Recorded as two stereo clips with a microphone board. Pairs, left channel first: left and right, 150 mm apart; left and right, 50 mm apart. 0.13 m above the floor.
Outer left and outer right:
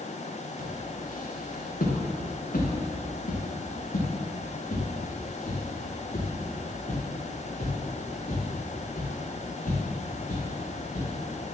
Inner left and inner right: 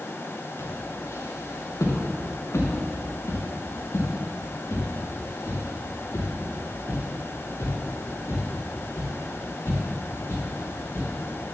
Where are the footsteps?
65° left (ahead or behind), 4.5 m; by 11.1 s 55° left (ahead or behind), 12 m.